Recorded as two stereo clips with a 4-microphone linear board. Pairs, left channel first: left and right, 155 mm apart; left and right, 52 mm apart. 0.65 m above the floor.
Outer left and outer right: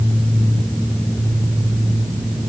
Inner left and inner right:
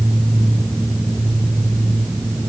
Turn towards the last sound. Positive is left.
No sound to turn to.